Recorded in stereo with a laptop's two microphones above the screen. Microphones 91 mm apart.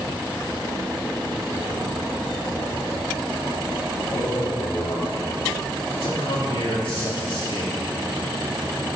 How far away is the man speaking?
About 2.5 m.